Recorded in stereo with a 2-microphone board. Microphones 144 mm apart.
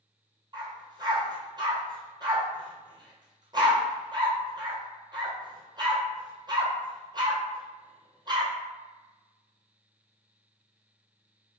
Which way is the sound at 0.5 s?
35° right (ahead or behind).